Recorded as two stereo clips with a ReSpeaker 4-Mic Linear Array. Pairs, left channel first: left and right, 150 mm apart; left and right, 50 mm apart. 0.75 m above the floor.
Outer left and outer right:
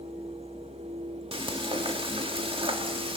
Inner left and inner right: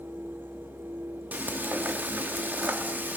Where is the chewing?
No chewing in this recording.